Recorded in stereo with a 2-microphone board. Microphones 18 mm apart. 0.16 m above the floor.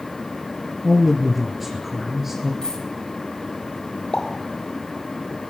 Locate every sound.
0.8 s a man speaking: centre (ahead or behind), 3 m; by 2.5 s 15° right (ahead or behind), 3 m
2.6 s a dropped coin: 50° left (ahead or behind), 4 m
4.1 s a pop: 50° left (ahead or behind), 6 m